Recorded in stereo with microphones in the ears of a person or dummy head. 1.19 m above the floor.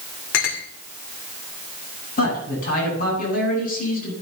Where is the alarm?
I don't hear an alarm.